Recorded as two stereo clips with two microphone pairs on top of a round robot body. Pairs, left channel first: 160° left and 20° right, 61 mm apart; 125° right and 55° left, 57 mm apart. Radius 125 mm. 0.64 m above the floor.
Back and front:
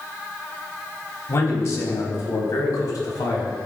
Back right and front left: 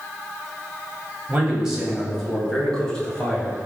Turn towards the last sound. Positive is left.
turn(degrees=165)